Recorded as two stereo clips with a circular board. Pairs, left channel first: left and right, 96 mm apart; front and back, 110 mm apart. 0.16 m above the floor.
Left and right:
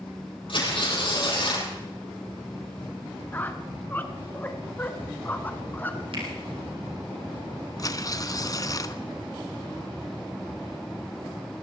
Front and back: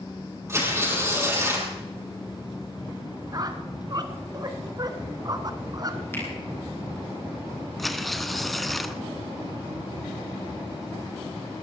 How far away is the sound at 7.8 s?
About 0.8 m.